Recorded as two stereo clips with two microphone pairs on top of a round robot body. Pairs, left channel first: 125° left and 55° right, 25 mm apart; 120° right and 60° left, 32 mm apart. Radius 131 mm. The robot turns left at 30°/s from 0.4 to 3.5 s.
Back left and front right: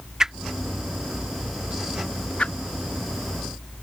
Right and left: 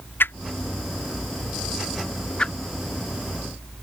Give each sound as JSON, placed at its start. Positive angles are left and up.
{"t": 0.2, "sound": "a whoosh", "azimuth_deg": -125}